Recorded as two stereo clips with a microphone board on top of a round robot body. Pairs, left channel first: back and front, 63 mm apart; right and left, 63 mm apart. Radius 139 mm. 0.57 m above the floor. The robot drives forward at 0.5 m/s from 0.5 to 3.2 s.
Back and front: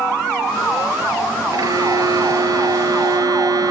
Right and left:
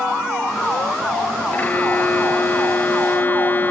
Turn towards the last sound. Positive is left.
turn(degrees=-30)